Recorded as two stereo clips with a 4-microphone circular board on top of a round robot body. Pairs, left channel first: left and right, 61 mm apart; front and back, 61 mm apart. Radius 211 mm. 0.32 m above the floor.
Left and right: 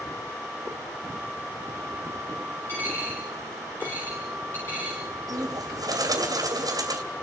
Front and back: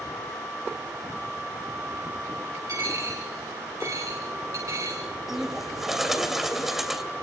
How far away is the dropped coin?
About 7.5 m.